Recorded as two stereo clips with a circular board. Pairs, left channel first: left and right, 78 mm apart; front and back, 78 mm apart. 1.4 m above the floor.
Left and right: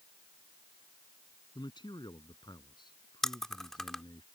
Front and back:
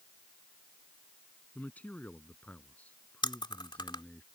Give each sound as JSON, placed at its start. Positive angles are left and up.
{"t": 1.6, "sound": "a man speaking", "azimuth_deg": 70}
{"t": 3.2, "sound": "chewing", "azimuth_deg": 5}